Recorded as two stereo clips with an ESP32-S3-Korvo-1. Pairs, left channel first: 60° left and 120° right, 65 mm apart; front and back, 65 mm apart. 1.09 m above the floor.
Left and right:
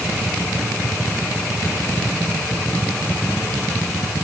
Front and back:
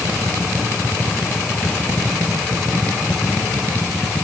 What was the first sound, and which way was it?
Only background noise.